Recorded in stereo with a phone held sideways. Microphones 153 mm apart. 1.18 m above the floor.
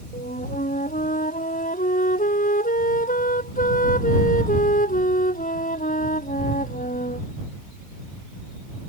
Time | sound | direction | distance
0.1 | a flute | 65° left (ahead or behind) | ?